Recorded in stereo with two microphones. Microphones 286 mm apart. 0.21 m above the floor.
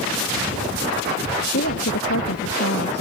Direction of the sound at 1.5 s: 50° left (ahead or behind).